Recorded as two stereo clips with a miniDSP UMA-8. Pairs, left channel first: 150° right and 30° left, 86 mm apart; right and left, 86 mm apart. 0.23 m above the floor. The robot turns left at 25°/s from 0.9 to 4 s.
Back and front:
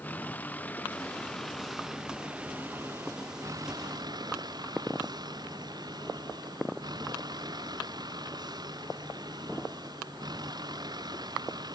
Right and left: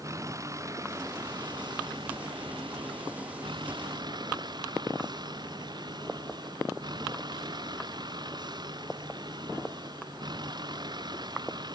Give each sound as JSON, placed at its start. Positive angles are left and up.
{"t": 0.0, "sound": "a vehicle", "azimuth_deg": 140}